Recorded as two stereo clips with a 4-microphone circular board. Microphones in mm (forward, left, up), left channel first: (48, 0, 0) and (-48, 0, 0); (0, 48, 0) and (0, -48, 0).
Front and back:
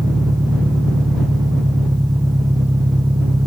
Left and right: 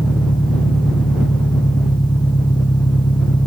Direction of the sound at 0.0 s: 130° left.